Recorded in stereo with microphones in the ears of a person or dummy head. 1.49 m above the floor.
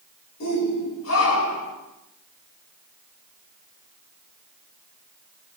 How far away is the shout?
About 6.5 m.